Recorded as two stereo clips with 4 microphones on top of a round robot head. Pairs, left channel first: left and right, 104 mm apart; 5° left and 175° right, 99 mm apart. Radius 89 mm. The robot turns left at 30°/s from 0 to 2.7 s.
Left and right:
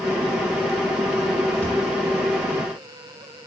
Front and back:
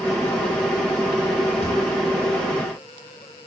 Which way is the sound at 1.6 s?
10° left.